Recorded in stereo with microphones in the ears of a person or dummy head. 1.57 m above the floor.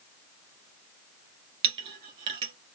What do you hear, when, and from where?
1.6 s a clink: 30° right (ahead or behind), 1.0 m